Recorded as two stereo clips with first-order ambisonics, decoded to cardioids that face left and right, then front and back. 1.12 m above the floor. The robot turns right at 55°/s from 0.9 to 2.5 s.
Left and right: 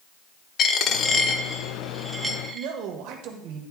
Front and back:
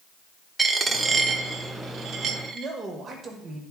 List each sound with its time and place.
0.6 s a dropped coin: 120° left, 0.7 m; by 2.7 s 155° right, 0.7 m
2.5 s a man speaking: 105° right, 1.2 m